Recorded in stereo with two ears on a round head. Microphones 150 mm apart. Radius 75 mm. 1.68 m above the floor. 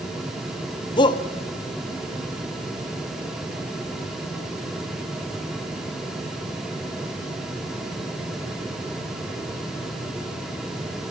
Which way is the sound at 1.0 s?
25° left (ahead or behind).